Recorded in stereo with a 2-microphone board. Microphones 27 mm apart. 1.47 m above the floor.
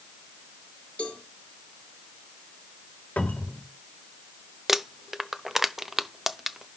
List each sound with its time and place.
1.0 s a cowbell: 45° left (ahead or behind), 6 m
3.2 s a cupboard door: 75° left (ahead or behind), 3 m
4.7 s crumpling: 15° right (ahead or behind), 0.6 m